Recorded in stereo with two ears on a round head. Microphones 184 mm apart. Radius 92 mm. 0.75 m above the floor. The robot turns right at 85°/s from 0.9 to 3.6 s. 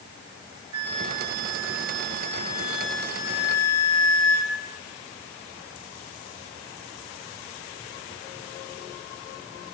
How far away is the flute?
About 1.8 m.